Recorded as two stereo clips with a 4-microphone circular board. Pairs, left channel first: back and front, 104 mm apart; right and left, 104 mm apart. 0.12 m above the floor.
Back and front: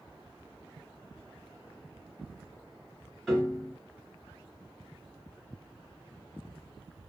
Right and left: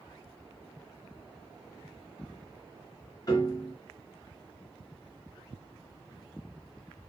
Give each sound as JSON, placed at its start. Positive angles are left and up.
{"t": 3.3, "sound": "a piano", "azimuth_deg": -100, "distance_m": 2.0}